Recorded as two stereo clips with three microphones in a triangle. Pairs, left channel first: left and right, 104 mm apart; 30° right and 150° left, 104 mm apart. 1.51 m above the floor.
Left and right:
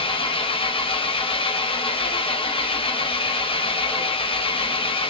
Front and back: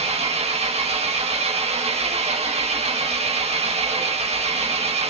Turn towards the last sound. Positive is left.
turn(degrees=130)